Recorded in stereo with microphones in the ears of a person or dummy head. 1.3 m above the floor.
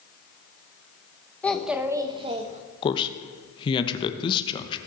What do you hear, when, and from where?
1.4 s a child speaking: 10° left (ahead or behind), 0.9 m; by 2.6 s 40° right (ahead or behind), 1.2 m
2.8 s a man speaking: 25° left (ahead or behind), 0.9 m